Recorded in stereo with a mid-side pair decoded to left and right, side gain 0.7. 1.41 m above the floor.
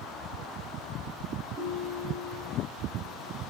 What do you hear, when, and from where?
1.6 s a ringtone: 40° right, 9 m